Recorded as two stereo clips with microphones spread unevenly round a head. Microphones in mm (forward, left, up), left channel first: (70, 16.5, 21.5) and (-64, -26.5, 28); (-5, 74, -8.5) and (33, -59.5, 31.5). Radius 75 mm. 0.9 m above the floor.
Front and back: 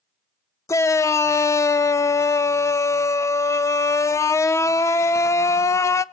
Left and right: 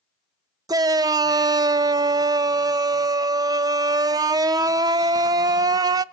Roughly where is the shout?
Ahead.